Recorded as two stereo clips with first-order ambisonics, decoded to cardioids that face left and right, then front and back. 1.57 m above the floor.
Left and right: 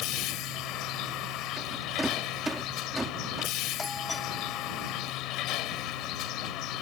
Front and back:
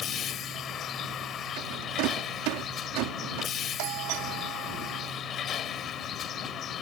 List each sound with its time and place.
0.0 s a vehicle: 55° left
1.6 s a rattle: 175° right
3.8 s a doorbell: 165° left